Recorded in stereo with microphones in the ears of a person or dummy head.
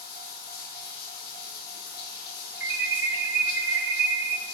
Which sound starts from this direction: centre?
An alarm, at 2.6 s.